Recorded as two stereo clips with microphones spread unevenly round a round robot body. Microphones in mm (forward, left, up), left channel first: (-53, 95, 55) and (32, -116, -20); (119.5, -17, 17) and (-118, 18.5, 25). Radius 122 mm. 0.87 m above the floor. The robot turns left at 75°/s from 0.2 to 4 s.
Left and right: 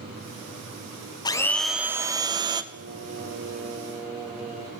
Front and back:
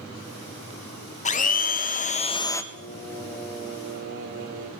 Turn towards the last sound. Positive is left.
turn(degrees=-140)